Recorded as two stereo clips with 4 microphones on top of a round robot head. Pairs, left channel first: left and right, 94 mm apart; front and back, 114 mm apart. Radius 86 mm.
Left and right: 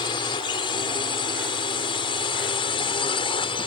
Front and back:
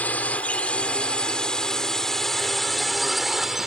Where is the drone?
70° left; by 3.7 s 90° left.